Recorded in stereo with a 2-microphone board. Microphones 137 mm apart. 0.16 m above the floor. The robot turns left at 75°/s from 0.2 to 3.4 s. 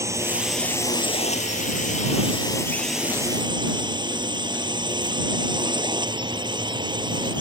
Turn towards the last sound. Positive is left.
turn(degrees=-35)